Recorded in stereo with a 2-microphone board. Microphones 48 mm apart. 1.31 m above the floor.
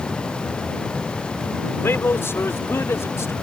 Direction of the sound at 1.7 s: 55° left (ahead or behind).